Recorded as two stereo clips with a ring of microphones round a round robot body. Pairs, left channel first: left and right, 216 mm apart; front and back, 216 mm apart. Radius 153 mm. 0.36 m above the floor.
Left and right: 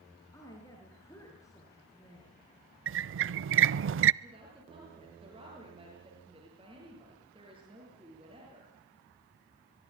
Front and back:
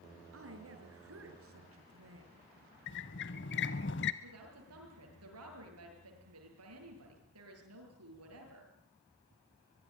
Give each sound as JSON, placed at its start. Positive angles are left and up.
{"t": 0.3, "sound": "a woman speaking", "azimuth_deg": 170, "distance_m": 5.5}
{"t": 2.9, "sound": "a squeak", "azimuth_deg": -55, "distance_m": 0.5}
{"t": 4.2, "sound": "a woman speaking", "azimuth_deg": -165, "distance_m": 8.0}